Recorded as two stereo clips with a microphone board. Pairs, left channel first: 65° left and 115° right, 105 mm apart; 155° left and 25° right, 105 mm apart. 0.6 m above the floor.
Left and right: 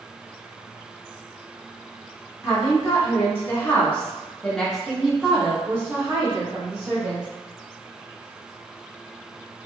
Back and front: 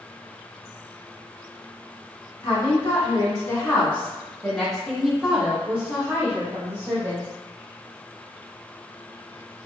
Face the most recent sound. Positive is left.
turn(degrees=-65)